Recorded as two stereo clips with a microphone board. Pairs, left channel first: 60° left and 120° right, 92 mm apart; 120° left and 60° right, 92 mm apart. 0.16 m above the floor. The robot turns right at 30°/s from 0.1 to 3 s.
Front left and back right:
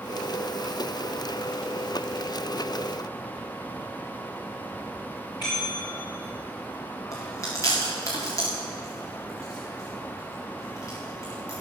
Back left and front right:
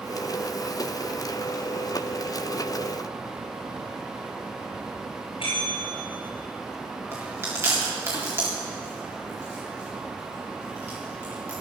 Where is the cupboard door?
I don't hear a cupboard door.